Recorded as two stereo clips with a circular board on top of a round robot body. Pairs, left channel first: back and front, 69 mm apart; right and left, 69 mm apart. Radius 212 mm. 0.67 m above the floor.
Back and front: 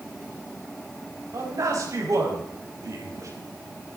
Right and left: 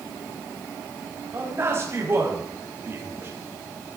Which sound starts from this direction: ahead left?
A man speaking, at 1.3 s.